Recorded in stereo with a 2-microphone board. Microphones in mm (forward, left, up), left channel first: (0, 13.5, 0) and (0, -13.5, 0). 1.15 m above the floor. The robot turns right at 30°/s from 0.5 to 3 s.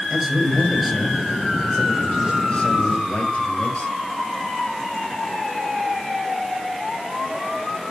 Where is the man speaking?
10° right, 6 m; by 3.9 s 65° left, 6 m.